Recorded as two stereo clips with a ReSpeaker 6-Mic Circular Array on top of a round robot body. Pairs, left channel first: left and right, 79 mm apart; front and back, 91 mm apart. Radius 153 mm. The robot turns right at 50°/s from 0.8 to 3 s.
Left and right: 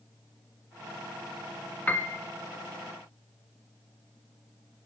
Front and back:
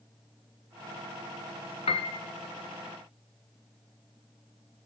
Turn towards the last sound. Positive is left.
turn(degrees=75)